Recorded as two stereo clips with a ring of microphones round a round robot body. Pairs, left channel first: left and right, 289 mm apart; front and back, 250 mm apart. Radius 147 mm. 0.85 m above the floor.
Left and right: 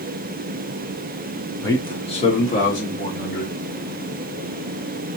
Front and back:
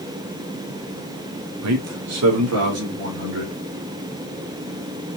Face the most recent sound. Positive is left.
turn(degrees=150)